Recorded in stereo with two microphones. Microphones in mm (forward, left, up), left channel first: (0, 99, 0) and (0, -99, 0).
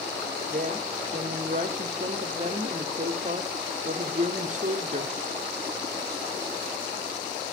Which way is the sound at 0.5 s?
40° right (ahead or behind).